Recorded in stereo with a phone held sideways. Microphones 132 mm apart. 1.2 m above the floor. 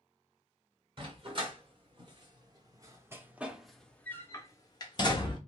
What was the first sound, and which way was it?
A dog barking, 40° right (ahead or behind).